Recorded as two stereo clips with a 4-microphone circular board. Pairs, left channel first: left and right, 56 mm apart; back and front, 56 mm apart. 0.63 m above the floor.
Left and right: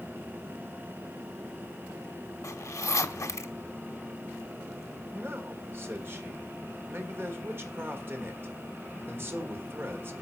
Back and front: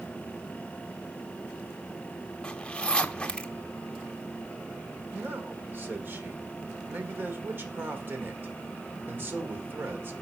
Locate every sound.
2.4 s a zipper: 105° left, 0.7 m
5.1 s a man speaking: 50° right, 1.7 m